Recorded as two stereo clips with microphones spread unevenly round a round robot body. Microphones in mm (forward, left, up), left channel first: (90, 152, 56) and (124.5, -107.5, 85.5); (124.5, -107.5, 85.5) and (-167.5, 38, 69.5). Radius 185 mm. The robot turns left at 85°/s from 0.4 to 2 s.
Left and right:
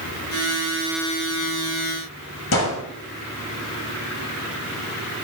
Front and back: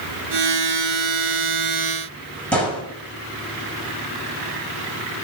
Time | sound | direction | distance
2.5 | a gunshot | 60° left | 7.5 m